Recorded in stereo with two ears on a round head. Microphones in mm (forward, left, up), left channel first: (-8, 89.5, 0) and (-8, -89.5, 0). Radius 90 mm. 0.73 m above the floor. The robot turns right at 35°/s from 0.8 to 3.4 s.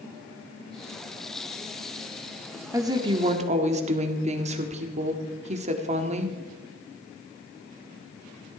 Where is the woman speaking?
15° right (ahead or behind), 1.7 m; by 6.4 s 35° right (ahead or behind), 1.7 m.